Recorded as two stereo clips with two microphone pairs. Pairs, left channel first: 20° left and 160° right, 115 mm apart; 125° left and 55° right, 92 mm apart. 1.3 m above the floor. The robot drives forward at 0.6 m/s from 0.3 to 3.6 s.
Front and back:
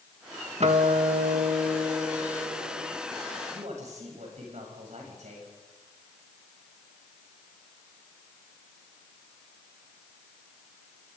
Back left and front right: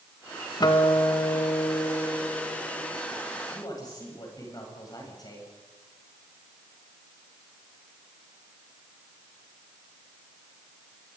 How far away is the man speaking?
About 8.5 m.